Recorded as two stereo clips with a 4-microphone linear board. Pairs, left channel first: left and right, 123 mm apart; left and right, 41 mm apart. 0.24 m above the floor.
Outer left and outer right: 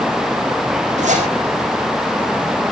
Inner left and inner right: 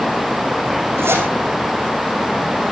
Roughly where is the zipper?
Right.